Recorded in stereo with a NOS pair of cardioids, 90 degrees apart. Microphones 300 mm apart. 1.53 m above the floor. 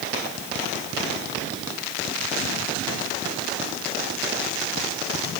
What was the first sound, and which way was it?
Only background noise.